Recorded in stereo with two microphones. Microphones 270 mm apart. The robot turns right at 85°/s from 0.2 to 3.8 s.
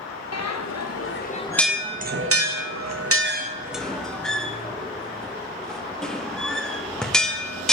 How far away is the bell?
About 0.6 m.